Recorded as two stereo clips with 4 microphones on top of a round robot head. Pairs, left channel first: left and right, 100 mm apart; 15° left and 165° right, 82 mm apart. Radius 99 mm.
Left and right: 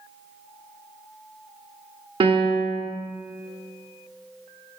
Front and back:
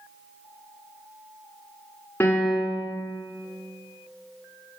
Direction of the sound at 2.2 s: 55° right.